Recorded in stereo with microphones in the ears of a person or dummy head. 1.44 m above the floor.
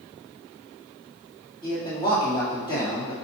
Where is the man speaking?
30° left (ahead or behind), 2.5 m.